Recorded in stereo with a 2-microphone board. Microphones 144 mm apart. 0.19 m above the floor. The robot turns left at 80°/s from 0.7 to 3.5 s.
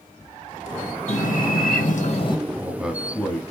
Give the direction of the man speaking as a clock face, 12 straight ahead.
5 o'clock.